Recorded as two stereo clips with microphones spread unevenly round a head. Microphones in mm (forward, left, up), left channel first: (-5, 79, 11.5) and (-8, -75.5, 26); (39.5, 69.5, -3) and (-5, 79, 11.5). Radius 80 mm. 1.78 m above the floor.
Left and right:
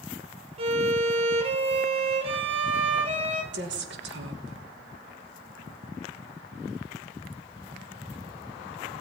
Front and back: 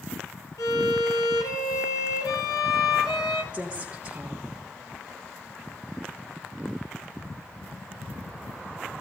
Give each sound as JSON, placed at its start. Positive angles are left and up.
{"t": 0.6, "sound": "a violin", "azimuth_deg": -35, "distance_m": 1.6}
{"t": 3.5, "sound": "a woman speaking", "azimuth_deg": -110, "distance_m": 2.5}